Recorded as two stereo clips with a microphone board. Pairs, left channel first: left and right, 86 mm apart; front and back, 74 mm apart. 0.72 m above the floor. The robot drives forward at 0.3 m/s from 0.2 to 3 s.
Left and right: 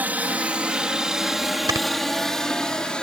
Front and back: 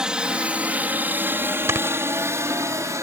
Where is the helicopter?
120° right; by 3.0 s 165° left.